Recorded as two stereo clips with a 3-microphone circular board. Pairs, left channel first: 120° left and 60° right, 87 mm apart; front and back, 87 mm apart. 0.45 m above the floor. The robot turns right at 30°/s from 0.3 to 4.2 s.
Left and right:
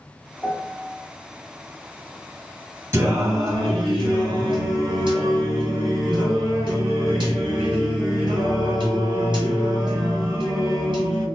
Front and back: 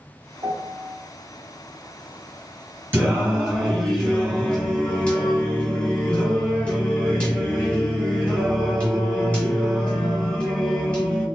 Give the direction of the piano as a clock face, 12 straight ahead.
6 o'clock.